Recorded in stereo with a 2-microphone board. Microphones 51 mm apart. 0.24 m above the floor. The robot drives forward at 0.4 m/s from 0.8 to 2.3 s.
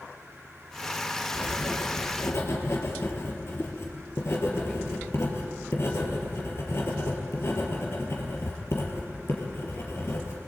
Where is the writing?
60° left (ahead or behind), 3.5 m; by 10.4 s 55° left (ahead or behind), 4 m.